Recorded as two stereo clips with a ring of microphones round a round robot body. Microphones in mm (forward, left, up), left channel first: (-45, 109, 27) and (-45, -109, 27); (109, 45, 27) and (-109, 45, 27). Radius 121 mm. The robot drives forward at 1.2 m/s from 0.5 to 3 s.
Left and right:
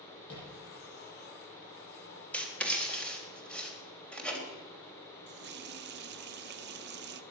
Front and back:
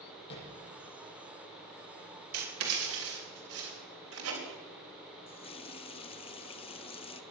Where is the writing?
175° left, 2.5 m.